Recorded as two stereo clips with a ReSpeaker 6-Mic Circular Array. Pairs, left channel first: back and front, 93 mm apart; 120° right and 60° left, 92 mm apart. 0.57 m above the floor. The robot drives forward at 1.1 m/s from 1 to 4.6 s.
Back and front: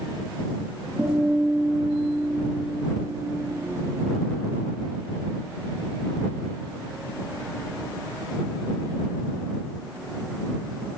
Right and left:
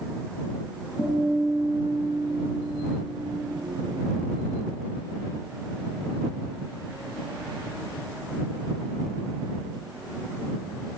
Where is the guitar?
75° right, 10 m; by 3.5 s 90° right, 9.5 m.